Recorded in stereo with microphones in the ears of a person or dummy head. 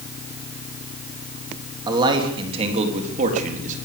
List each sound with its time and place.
1.9 s a man speaking: 25° right (ahead or behind), 3.5 m; by 3.8 s 45° right (ahead or behind), 4 m